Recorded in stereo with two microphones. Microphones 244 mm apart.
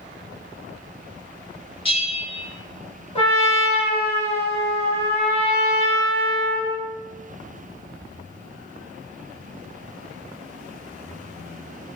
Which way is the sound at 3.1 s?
25° left (ahead or behind).